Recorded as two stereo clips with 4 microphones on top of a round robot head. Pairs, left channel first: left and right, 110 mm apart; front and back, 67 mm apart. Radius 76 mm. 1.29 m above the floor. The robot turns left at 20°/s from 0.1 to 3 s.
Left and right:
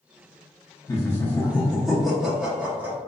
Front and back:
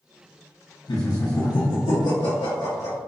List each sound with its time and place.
0.9 s laughter: 25° left, 0.6 m; by 3.0 s 20° right, 0.6 m